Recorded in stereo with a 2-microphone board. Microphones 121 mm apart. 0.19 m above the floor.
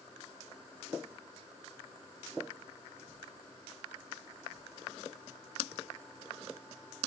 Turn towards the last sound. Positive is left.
No sound to turn to.